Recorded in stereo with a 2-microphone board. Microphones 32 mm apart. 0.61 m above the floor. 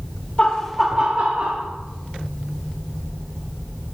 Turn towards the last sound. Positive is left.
turn(degrees=-55)  # may be behind; listen again after turning